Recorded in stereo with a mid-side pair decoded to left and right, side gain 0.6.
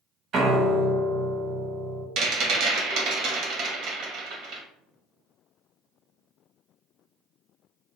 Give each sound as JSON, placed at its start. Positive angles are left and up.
{"t": 0.3, "sound": "a piano", "azimuth_deg": -50, "distance_m": 0.8}
{"t": 2.2, "sound": "a rattle", "azimuth_deg": -60, "distance_m": 1.0}